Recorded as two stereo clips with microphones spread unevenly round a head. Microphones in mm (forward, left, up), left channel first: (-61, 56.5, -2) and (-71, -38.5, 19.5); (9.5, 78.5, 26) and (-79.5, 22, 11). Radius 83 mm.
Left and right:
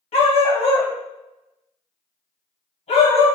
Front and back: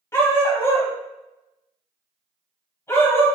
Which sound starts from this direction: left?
A dog barking, at 0.1 s.